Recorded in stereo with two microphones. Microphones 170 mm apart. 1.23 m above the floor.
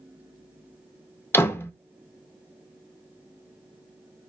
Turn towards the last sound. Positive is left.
turn(degrees=15)  # may be behind; listen again after turning